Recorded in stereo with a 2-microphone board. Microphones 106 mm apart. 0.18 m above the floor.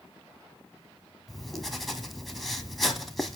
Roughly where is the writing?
Centre.